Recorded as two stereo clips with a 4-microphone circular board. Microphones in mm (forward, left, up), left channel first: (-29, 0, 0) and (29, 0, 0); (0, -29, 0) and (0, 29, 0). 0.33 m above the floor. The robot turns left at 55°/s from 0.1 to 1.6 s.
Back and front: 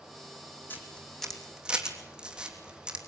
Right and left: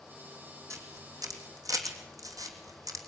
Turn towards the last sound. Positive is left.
turn(degrees=75)